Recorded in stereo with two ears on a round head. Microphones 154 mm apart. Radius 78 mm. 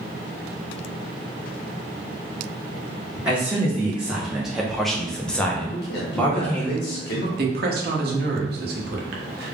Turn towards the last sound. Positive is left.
turn(degrees=-65)  # may be behind; listen again after turning